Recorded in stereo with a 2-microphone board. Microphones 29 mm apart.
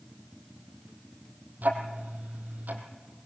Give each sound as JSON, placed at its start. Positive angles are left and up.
{"t": 1.6, "sound": "ticking", "side_deg": -80, "distance_m": 3.5}